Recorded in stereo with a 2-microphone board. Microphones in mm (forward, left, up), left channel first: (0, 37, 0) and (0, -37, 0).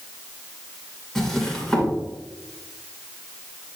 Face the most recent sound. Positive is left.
turn(degrees=0)  # may be behind; listen again after turning